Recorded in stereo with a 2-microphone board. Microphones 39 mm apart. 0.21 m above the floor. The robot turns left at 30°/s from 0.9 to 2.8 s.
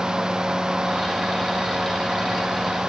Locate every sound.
Only background noise.